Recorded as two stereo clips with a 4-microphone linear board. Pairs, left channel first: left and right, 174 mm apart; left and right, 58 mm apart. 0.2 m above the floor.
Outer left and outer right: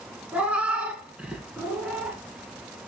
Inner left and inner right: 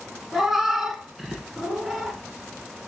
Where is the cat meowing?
5° right (ahead or behind), 0.9 m.